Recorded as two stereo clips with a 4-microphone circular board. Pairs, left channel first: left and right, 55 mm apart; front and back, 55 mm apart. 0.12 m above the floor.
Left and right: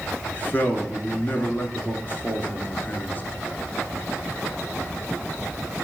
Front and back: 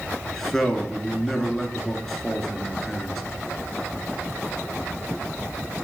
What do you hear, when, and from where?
0.3 s a man speaking: 80° left, 1.2 m